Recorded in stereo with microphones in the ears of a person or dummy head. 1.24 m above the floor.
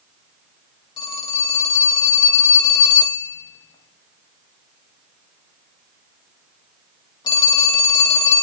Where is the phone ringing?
30° left (ahead or behind), 0.8 m.